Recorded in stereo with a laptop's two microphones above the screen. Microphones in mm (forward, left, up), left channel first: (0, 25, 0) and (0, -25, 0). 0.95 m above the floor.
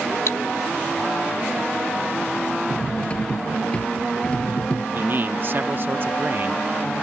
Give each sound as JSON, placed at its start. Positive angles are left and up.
{"t": 0.3, "sound": "cutlery clinking", "side_deg": 80}
{"t": 2.7, "sound": "cutlery clinking", "side_deg": 20}
{"t": 5.0, "sound": "a man speaking", "side_deg": -45}